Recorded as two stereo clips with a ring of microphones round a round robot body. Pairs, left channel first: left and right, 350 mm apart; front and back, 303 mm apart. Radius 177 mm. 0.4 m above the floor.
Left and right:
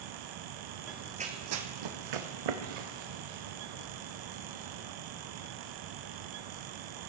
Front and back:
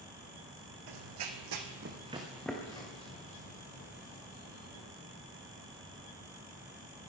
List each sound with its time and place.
0.9 s running footsteps: straight behind, 1.4 m; by 4.8 s 65° right, 4.5 m